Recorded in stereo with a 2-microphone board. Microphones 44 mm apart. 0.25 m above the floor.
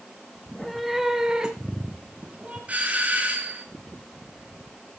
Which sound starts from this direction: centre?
A cat meowing, at 0.5 s.